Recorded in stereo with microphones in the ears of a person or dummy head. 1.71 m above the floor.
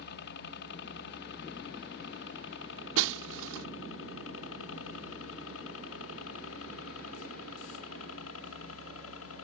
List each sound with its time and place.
0.0 s a helicopter: 60° left (ahead or behind); by 9.4 s 75° left (ahead or behind)
3.0 s breaking glass: 75° right (ahead or behind)